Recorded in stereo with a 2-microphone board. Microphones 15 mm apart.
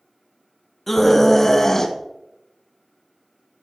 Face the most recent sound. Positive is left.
turn(degrees=35)  # may be behind; listen again after turning